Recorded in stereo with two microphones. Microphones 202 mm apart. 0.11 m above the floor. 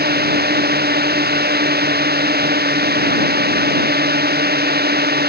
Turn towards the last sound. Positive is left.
turn(degrees=-55)  # may be behind; listen again after turning